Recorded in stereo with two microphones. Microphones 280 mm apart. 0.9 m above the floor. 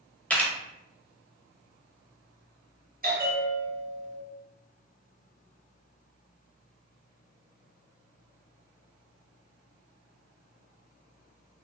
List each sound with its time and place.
0.3 s a camera shutter: 5° left (ahead or behind), 0.8 m
3.0 s a bell: 35° right (ahead or behind), 0.7 m